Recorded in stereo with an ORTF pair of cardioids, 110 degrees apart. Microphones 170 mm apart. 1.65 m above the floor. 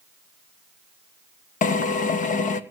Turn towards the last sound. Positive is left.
turn(degrees=50)